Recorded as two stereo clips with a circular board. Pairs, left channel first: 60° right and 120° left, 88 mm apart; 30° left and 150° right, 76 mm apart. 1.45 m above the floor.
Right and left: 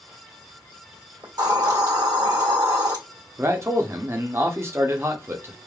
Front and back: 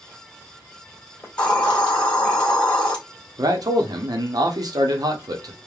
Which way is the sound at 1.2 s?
100° left.